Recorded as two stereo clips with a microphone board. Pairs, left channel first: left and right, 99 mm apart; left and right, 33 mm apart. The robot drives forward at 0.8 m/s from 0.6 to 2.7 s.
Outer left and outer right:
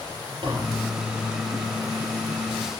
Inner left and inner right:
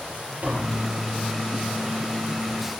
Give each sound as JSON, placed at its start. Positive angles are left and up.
{"t": 0.4, "sound": "tapping", "side_deg": -50, "distance_m": 4.5}